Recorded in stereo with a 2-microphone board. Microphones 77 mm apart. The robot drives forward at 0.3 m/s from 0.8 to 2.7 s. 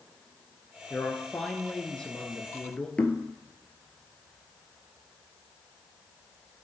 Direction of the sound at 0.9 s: 10° left (ahead or behind).